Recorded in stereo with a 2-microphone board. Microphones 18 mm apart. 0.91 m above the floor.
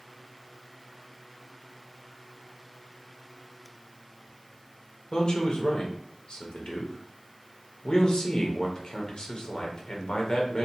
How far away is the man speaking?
About 0.7 m.